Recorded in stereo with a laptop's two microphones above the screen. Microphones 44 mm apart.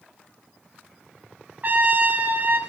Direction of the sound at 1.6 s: 45° right (ahead or behind).